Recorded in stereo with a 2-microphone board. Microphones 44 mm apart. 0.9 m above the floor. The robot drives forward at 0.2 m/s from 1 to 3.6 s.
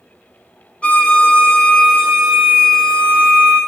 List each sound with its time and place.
0.8 s a violin: 30° left (ahead or behind), 0.6 m; by 3.6 s 15° left (ahead or behind), 1.1 m